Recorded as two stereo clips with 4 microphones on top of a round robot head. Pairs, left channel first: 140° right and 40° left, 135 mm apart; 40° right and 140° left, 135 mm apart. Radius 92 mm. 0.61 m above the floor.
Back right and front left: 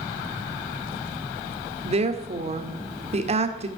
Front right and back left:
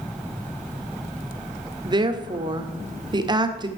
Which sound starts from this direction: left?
A woman speaking, at 1.9 s.